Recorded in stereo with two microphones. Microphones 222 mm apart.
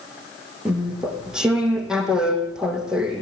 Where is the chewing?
5° right (ahead or behind), 3.5 m.